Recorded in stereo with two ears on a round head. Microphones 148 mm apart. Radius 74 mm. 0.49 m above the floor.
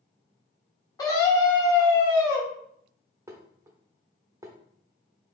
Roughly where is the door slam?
No door slam in this recording.